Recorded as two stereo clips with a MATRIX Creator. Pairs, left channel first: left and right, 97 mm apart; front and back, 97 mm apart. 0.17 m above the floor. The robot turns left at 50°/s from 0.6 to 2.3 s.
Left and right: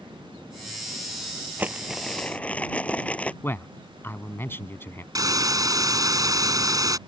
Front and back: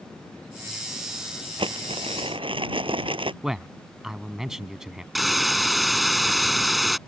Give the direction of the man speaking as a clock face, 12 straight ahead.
9 o'clock.